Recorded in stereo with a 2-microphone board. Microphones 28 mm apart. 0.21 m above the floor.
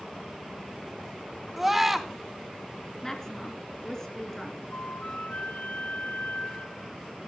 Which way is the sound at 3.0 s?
20° left (ahead or behind).